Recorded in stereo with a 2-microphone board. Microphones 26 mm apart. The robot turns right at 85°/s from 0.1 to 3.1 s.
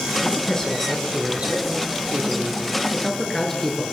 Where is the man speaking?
120° left, 6 m; by 3.8 s 5° left, 6 m.